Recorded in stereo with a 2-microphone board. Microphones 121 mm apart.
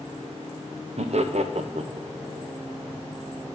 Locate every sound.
1.0 s laughter: 65° right (ahead or behind), 0.6 m